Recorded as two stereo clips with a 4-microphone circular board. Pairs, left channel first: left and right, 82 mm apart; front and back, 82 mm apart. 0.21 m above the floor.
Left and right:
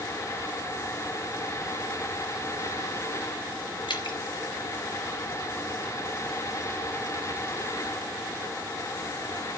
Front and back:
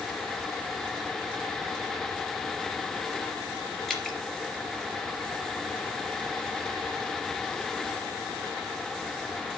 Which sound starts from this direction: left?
Dripping, at 3.9 s.